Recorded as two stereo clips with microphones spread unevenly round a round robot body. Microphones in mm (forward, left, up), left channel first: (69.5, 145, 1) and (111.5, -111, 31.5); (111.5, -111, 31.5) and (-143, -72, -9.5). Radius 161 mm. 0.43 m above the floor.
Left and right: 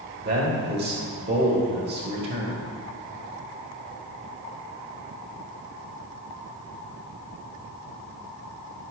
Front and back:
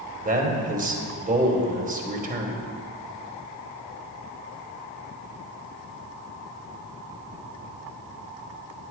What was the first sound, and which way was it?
A man speaking, 140° right.